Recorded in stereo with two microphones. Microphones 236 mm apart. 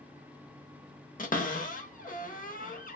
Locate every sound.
1.2 s a cupboard door: 35° left (ahead or behind), 0.8 m